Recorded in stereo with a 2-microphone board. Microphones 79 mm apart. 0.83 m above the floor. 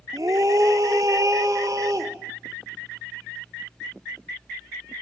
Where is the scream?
50° right (ahead or behind), 2.5 m.